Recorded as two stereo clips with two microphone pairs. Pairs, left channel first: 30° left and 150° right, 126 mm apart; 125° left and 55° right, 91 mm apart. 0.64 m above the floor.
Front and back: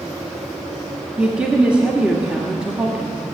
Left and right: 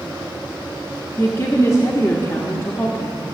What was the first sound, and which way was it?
A woman speaking, 135° left.